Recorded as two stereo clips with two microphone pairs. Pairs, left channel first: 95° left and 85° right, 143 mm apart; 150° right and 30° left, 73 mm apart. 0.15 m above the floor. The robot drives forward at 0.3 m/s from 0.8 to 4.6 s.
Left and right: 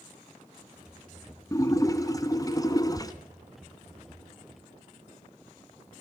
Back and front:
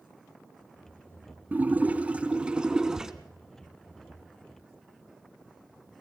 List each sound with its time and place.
1.5 s a splash: 60° left, 1.5 m; by 3.1 s 105° left, 1.4 m